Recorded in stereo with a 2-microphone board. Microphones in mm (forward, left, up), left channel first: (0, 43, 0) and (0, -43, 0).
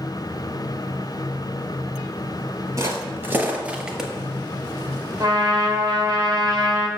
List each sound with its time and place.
2.8 s footsteps: 35° right (ahead or behind), 1.6 m; by 4.1 s centre (ahead or behind), 1.2 m
5.2 s a trumpet: 45° right (ahead or behind), 1.3 m